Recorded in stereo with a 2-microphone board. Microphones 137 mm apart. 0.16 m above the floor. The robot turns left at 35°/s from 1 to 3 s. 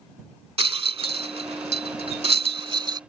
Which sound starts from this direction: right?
A rattle, at 0.6 s.